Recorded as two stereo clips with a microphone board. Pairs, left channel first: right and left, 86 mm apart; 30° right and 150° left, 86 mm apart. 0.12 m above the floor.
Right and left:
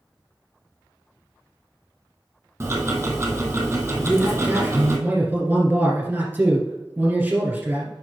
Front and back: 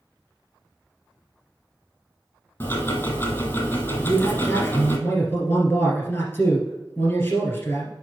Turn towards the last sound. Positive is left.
turn(degrees=25)